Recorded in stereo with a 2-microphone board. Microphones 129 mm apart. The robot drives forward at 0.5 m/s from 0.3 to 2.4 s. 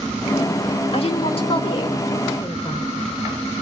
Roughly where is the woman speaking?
Left.